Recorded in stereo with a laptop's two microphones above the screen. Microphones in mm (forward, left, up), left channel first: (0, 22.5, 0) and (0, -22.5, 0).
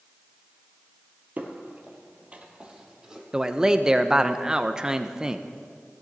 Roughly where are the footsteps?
Right.